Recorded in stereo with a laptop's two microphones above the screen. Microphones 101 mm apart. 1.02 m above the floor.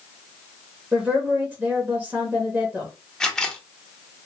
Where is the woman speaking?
10° right (ahead or behind), 0.6 m.